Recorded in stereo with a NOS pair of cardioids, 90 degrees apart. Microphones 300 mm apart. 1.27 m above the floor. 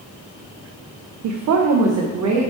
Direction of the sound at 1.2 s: 70° right.